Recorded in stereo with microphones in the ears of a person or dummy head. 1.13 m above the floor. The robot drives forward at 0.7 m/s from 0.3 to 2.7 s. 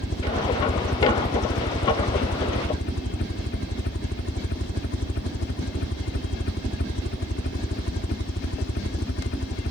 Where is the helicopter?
60° left (ahead or behind).